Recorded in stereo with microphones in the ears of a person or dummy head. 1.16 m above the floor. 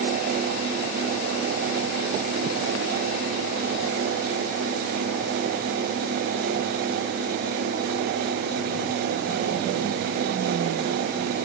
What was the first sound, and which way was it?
Only background noise.